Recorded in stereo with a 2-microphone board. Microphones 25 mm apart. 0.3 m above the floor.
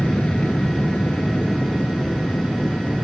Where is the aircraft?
65° left (ahead or behind); by 3.0 s 75° left (ahead or behind).